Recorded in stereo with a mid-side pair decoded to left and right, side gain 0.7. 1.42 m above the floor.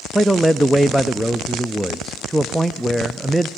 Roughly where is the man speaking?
Ahead.